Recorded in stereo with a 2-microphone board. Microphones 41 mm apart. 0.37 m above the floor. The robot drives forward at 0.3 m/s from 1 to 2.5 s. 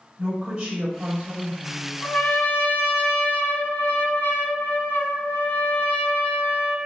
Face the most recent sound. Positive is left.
turn(degrees=65)  # may be behind; listen again after turning